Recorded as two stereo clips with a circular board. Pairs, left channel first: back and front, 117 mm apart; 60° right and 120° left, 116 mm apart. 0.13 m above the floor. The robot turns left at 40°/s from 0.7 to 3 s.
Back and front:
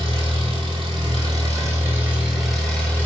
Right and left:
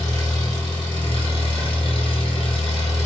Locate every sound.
0.0 s an engine running: 15° right, 1.0 m; by 3.1 s 110° right, 1.0 m